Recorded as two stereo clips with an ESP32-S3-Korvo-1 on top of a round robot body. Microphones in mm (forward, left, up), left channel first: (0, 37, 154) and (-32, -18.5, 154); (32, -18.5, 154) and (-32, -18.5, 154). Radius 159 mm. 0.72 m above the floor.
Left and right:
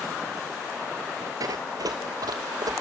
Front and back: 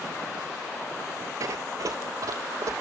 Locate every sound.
1.4 s running footsteps: 150° right, 1.0 m; by 2.7 s 140° right, 2.5 m